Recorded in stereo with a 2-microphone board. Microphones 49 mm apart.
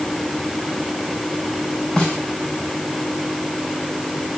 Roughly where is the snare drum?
Centre.